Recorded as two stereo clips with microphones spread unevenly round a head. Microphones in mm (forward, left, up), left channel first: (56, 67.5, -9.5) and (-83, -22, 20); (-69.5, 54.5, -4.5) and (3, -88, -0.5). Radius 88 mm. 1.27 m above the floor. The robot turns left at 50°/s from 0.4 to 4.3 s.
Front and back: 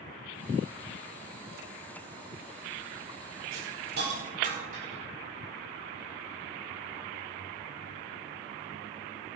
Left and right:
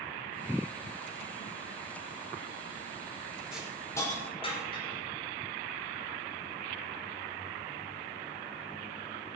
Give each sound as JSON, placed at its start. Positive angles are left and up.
{"t": 3.5, "sound": "a hiss", "azimuth_deg": -150, "distance_m": 5.5}